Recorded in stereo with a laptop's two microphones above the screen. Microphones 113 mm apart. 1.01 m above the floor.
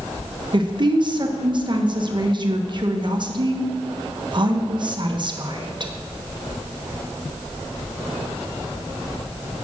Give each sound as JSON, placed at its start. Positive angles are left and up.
{"t": 0.5, "sound": "a woman speaking", "side_deg": -40, "distance_m": 1.1}